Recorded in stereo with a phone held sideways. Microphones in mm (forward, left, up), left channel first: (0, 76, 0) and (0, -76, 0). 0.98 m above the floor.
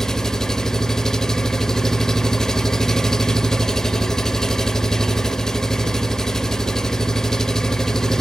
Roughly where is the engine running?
Centre.